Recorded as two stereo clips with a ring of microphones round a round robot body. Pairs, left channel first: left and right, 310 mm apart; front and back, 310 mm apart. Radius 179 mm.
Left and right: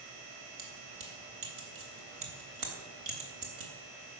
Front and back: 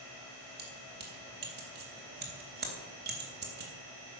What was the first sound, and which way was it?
Keys jangling, 120° right.